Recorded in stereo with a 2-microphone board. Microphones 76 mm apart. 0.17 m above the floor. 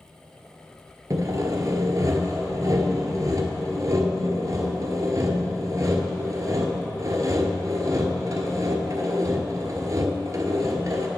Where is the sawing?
45° right (ahead or behind), 1.0 m.